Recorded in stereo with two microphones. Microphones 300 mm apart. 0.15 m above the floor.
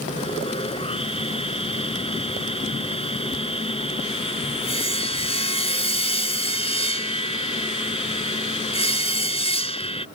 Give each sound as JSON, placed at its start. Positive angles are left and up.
{"t": 0.1, "sound": "sawing", "side_deg": 20}